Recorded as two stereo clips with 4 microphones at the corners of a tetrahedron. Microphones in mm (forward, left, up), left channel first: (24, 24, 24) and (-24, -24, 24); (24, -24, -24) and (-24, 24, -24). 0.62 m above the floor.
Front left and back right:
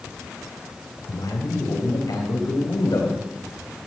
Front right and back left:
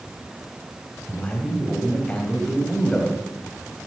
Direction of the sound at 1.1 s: 25° left.